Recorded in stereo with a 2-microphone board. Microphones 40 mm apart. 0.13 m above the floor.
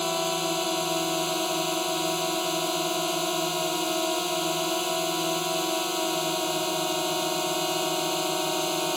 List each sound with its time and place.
0.0 s a drone: centre (ahead or behind)